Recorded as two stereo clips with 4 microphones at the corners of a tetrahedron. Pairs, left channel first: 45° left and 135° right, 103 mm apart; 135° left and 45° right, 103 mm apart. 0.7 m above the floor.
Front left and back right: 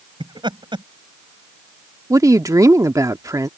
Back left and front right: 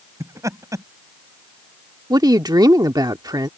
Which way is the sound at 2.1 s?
85° right.